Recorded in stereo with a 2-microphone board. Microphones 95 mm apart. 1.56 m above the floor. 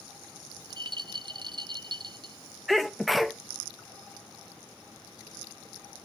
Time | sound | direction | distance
0.6 | a rattle | 50° right (ahead or behind) | 0.5 m
2.7 | a sneeze | centre (ahead or behind) | 0.6 m